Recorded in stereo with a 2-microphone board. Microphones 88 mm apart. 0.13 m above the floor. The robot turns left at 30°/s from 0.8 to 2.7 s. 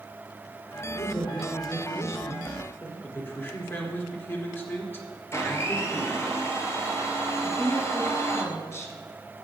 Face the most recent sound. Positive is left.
turn(degrees=35)  # may be behind; listen again after turning